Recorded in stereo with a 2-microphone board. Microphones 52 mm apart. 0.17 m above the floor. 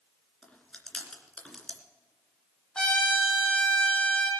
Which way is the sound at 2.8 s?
10° left (ahead or behind).